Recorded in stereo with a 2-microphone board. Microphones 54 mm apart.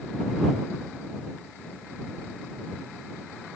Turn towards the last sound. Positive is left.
No sound to turn to.